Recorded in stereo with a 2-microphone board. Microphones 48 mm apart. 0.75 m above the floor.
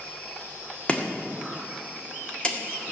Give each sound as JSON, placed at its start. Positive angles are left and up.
{"t": 0.9, "sound": "chopping", "side_deg": 25, "distance_m": 1.8}